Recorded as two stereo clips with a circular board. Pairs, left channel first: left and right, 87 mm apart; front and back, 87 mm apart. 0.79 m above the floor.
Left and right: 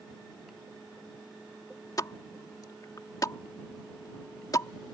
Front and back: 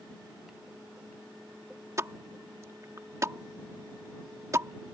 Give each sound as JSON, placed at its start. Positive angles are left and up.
{"t": 2.0, "sound": "a pop", "azimuth_deg": 130}